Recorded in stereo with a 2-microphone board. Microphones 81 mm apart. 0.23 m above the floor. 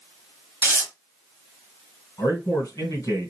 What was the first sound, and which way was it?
Tearing paper, 25° right (ahead or behind).